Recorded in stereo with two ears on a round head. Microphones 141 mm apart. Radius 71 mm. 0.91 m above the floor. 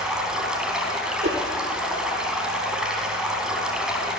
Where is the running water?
5° right (ahead or behind), 3.5 m.